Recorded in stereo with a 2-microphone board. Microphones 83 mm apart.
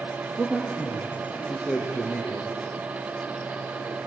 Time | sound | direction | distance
0.4 | a man speaking | 5° right (ahead or behind) | 4 m